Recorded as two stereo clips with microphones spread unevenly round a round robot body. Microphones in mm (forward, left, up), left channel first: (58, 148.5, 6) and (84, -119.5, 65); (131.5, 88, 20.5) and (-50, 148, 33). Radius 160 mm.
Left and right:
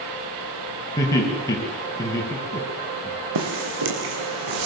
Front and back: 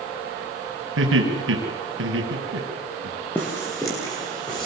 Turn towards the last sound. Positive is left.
turn(degrees=-95)